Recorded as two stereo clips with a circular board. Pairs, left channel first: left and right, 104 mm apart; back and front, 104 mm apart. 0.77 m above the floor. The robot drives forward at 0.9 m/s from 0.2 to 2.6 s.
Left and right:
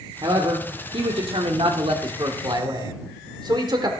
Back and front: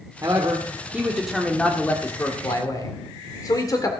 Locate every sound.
0.2 s a man speaking: 55° right, 1.8 m; by 3.9 s 130° right, 1.9 m